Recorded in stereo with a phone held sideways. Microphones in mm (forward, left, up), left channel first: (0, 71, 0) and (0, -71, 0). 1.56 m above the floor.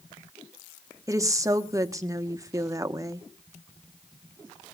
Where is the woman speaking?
20° right (ahead or behind), 1.3 m.